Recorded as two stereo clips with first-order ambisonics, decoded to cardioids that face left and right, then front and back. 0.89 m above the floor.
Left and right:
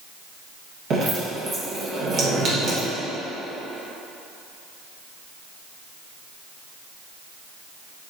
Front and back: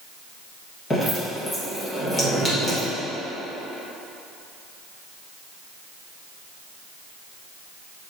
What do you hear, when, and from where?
0.9 s dripping: 60° right, 1.0 m